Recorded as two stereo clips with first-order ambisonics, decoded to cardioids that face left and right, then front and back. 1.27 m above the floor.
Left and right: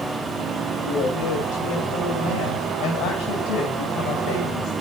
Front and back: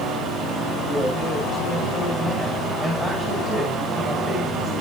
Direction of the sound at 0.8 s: 100° left.